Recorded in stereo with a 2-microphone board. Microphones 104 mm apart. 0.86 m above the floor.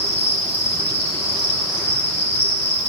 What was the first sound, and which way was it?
An insect, 70° left (ahead or behind).